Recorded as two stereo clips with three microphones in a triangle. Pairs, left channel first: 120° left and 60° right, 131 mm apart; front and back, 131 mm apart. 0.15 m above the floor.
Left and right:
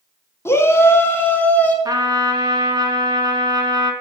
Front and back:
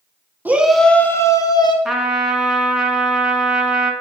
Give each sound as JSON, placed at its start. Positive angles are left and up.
{"t": 0.5, "sound": "a shout", "azimuth_deg": 135, "distance_m": 1.1}
{"t": 1.9, "sound": "a trumpet", "azimuth_deg": -95, "distance_m": 1.4}